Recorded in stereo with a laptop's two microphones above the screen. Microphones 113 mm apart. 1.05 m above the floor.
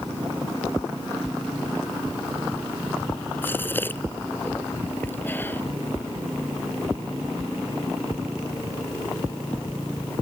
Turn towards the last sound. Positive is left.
turn(degrees=20)  # may be behind; listen again after turning